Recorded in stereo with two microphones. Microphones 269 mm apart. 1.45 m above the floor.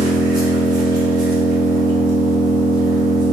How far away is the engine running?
About 1.3 m.